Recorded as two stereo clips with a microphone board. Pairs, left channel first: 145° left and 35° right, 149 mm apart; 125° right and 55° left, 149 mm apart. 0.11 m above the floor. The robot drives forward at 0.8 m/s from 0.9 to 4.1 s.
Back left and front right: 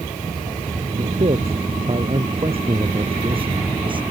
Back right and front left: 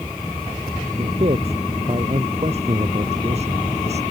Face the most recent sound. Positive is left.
turn(degrees=20)